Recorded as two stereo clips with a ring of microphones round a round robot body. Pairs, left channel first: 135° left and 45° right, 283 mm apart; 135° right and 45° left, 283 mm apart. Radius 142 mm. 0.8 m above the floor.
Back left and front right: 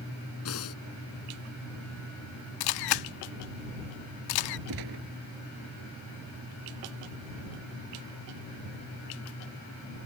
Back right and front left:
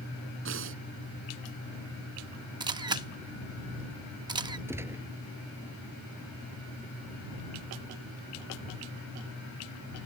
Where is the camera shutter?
120° left.